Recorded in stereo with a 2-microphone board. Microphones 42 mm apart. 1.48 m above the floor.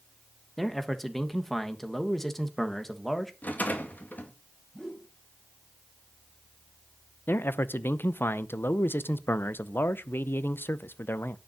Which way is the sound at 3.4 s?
45° left (ahead or behind).